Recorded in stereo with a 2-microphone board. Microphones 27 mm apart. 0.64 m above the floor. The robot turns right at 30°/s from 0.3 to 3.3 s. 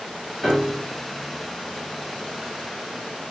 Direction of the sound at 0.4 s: 5° left (ahead or behind).